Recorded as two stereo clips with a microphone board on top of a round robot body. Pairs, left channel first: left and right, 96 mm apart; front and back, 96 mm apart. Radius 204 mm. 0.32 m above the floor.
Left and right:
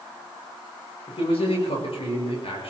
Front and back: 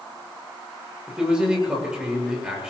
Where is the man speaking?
100° left, 8 m.